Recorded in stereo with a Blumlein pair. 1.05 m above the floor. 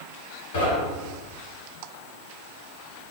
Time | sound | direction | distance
0.5 | knocking | 50° left | 1.3 m